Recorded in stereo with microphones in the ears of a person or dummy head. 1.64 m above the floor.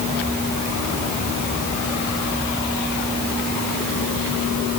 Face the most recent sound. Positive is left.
No sound to turn to.